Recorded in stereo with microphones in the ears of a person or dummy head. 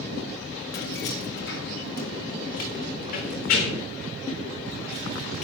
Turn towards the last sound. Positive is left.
turn(degrees=50)  # may be behind; listen again after turning